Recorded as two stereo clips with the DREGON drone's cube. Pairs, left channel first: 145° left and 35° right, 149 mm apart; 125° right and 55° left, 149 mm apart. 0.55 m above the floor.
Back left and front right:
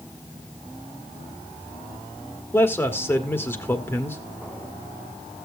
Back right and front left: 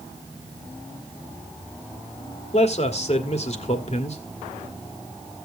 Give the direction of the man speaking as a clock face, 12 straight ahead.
5 o'clock.